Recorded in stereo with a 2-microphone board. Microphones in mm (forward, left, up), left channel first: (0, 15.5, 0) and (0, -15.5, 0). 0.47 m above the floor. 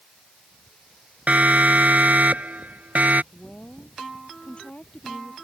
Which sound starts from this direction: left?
A woman speaking, at 3.3 s.